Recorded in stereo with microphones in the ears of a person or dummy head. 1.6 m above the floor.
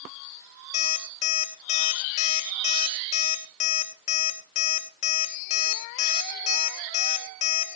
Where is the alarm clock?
40° left (ahead or behind), 2.5 m.